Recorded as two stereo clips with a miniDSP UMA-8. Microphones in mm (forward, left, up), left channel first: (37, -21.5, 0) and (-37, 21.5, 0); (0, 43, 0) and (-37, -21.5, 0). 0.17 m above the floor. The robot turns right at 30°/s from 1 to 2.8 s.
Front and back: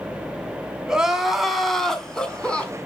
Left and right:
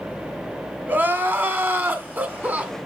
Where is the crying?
135° right, 1.3 m; by 2.7 s 85° right, 1.3 m.